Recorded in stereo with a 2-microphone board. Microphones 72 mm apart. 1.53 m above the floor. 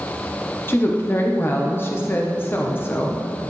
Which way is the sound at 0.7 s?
30° left (ahead or behind).